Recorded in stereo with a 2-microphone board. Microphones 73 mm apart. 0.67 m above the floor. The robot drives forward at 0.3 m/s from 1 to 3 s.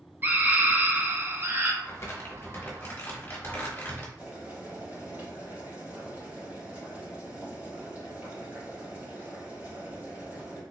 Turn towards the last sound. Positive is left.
turn(degrees=-25)  # may be behind; listen again after turning